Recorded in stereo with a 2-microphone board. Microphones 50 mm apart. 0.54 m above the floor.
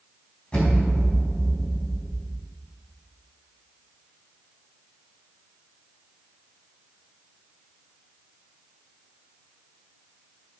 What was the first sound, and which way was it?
An explosion, 20° left (ahead or behind).